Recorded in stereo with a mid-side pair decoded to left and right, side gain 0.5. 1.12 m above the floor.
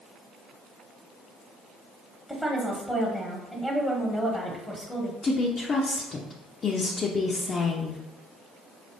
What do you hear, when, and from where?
2.3 s a woman speaking: 5° right, 1.3 m
5.2 s a woman speaking: 40° left, 0.7 m